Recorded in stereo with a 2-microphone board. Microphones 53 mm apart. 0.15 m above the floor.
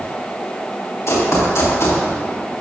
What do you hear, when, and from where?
1.1 s running footsteps: 55° left (ahead or behind), 4 m